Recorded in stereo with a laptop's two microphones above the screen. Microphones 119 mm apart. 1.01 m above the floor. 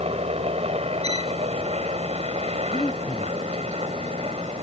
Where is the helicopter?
60° right (ahead or behind).